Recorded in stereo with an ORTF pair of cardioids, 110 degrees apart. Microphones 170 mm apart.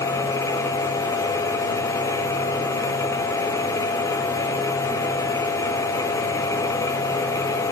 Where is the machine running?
20° left, 1.1 m.